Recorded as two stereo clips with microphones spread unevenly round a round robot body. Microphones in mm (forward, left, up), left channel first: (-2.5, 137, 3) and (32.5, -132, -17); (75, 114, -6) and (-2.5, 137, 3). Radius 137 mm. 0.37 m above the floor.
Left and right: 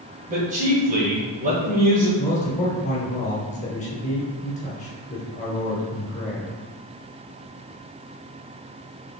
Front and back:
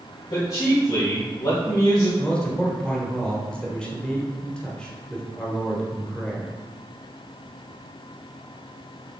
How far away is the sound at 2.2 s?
About 1.3 m.